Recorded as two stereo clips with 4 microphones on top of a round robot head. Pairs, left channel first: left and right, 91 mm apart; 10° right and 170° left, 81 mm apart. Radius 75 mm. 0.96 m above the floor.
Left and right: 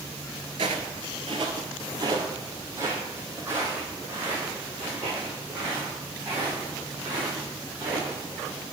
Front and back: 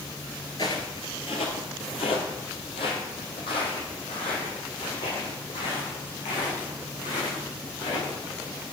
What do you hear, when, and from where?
0.6 s footsteps: 65° right, 1.1 m; by 8.6 s 15° right, 6.5 m